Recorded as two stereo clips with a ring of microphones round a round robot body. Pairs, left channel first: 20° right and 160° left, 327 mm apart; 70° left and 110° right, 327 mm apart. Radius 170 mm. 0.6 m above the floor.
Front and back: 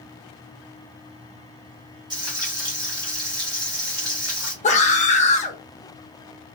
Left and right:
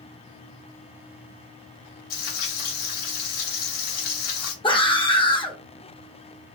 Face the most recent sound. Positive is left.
turn(degrees=10)